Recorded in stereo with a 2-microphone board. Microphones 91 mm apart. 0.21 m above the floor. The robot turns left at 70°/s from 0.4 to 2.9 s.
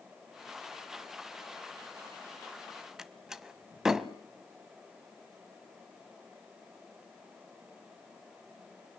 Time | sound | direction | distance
3.0 | a door slam | 5° right (ahead or behind) | 1.1 m